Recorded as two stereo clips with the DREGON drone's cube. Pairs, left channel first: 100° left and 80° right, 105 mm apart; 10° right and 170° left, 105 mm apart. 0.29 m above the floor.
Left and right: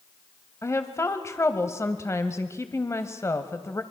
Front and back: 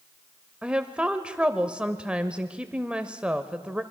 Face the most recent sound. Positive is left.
turn(degrees=100)